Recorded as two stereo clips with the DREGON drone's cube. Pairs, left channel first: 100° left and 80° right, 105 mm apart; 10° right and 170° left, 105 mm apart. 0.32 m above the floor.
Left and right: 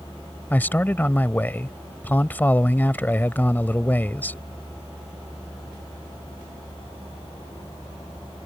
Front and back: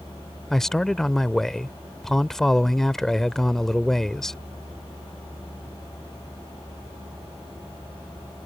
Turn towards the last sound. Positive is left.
turn(degrees=70)